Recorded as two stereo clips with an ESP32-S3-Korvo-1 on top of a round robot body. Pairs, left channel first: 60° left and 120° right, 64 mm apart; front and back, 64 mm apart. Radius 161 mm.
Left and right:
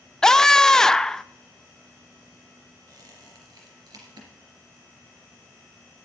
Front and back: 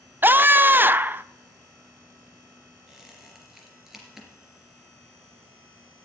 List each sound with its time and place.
0.2 s a scream: 140° left, 0.7 m
2.9 s a squeak: 95° right, 3 m